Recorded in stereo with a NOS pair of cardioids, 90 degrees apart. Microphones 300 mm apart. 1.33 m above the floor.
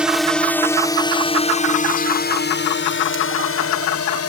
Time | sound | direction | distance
0.0 | a drone | 5° right | ?